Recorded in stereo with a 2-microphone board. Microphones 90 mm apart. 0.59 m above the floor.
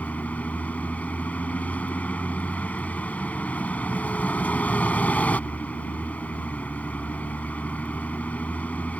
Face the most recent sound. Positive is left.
turn(degrees=15)  # may be behind; listen again after turning